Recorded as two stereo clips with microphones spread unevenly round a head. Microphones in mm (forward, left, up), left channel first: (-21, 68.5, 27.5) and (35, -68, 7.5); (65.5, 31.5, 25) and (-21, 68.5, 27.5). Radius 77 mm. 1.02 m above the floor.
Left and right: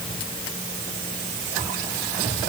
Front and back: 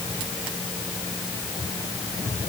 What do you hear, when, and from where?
Only background noise.